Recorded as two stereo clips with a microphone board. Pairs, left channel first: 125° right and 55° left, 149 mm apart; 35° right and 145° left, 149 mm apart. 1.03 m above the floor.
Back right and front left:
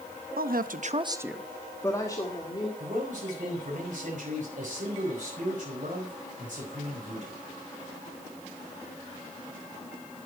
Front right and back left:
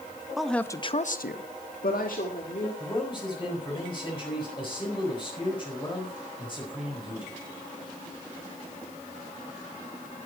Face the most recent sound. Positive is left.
turn(degrees=20)